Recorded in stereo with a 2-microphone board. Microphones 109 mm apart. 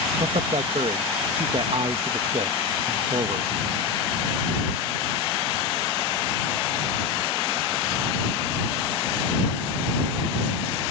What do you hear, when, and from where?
0.2 s a man speaking: 60° right (ahead or behind)